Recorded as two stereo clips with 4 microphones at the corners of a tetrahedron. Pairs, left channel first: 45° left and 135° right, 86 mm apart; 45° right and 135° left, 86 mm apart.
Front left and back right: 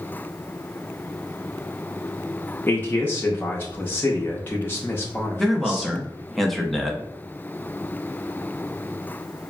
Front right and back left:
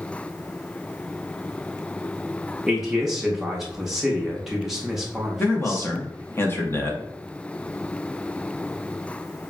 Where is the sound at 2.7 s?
60° left, 0.5 m.